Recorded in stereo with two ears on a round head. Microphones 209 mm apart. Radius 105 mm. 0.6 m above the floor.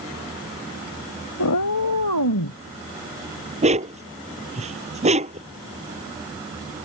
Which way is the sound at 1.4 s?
75° left (ahead or behind).